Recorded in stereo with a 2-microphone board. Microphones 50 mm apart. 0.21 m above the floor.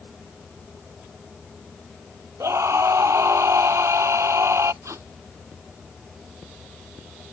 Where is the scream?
75° right (ahead or behind).